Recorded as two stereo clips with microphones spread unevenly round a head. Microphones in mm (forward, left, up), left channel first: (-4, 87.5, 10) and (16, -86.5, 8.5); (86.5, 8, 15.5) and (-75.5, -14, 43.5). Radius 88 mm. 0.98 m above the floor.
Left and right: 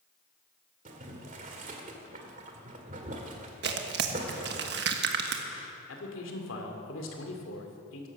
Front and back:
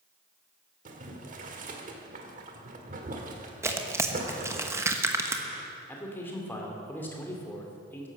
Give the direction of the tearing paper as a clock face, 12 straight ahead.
3 o'clock.